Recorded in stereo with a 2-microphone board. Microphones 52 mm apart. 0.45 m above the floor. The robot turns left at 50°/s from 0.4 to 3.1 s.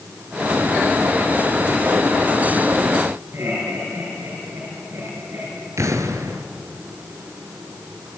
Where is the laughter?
55° right (ahead or behind), 8.5 m.